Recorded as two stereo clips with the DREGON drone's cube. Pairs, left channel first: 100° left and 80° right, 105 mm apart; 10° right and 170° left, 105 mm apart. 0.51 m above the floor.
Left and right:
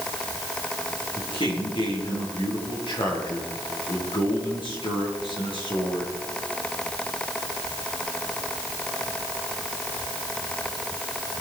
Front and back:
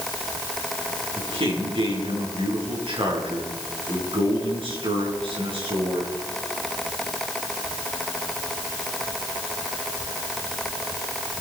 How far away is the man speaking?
About 7 m.